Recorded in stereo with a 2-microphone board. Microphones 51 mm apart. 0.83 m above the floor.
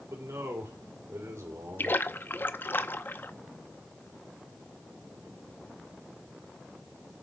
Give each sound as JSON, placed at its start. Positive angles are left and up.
{"t": 0.1, "sound": "a man speaking", "side_deg": -75, "distance_m": 3.5}
{"t": 1.8, "sound": "a splash", "side_deg": 45, "distance_m": 0.6}